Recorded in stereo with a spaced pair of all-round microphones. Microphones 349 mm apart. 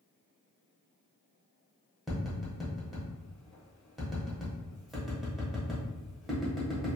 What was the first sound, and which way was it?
Tapping, centre (ahead or behind).